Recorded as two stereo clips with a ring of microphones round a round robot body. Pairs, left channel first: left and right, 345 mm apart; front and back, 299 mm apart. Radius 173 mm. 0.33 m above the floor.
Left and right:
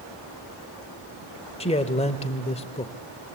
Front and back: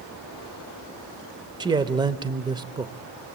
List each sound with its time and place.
1.6 s a man speaking: 130° left, 0.8 m